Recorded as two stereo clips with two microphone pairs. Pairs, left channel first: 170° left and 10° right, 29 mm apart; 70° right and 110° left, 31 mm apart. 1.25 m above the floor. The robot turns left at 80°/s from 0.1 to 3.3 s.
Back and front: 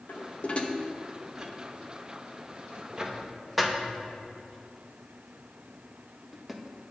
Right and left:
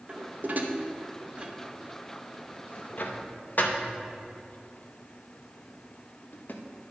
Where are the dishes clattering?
165° left, 0.8 m; by 6.6 s 95° right, 0.8 m.